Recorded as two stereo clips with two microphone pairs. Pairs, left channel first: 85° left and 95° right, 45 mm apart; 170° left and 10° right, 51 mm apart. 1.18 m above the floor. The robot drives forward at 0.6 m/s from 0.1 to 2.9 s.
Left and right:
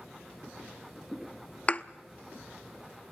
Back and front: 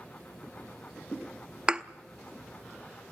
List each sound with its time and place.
1.7 s a thud: 45° left, 0.7 m; by 1.8 s 55° left, 0.7 m